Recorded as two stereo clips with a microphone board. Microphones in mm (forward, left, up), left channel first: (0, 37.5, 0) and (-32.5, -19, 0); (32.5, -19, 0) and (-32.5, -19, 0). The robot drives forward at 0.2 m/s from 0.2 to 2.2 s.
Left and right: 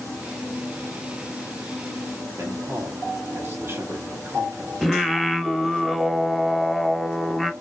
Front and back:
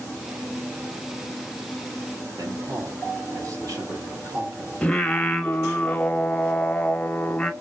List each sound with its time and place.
2.3 s a man speaking: 165° right, 1.5 m
4.8 s singing: 30° right, 0.6 m